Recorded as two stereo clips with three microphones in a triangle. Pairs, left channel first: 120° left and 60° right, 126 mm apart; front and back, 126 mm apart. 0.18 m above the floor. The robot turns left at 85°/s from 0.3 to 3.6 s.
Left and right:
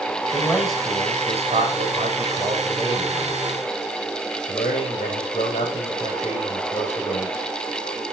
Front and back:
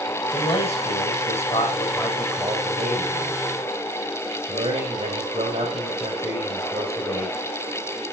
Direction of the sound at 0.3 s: 65° left.